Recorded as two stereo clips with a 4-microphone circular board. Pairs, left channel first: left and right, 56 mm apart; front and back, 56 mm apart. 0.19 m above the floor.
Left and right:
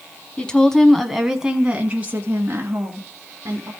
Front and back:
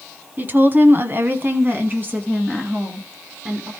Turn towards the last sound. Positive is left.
turn(degrees=-120)